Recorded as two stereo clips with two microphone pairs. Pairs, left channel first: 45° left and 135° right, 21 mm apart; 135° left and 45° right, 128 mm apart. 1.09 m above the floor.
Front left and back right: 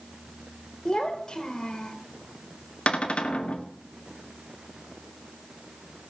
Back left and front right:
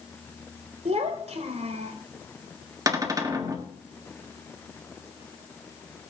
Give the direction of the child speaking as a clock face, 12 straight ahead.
12 o'clock.